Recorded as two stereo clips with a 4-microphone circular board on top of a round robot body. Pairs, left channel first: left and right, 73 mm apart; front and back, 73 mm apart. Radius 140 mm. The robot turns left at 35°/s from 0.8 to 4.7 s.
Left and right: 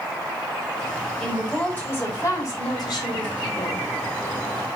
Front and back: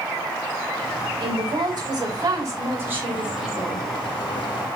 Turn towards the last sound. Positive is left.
turn(degrees=55)